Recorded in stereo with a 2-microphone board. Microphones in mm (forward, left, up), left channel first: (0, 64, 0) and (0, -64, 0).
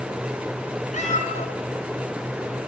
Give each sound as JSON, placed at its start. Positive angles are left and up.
{"t": 0.9, "sound": "a cat meowing", "side_deg": 70, "distance_m": 2.5}